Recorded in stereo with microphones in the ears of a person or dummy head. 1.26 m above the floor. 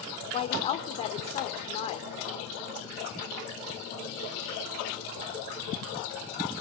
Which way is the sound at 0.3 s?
30° left (ahead or behind).